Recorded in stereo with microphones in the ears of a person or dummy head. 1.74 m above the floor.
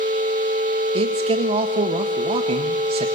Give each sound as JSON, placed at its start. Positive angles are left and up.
{"t": 0.9, "sound": "a man speaking", "side_deg": -35, "distance_m": 1.6}